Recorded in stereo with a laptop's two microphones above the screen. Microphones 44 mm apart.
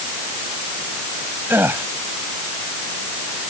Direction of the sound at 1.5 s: 60° right (ahead or behind).